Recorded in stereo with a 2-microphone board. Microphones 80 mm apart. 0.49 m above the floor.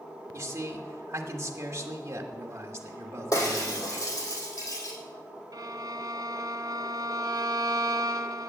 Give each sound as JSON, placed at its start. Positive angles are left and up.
{"t": 0.3, "sound": "a man speaking", "side_deg": -35, "distance_m": 1.3}
{"t": 3.3, "sound": "breaking glass", "side_deg": 45, "distance_m": 4.0}
{"t": 5.5, "sound": "a violin", "side_deg": -60, "distance_m": 0.8}